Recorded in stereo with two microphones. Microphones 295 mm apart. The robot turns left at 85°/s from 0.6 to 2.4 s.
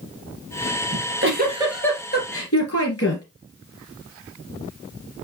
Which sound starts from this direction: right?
A giggle, at 0.9 s.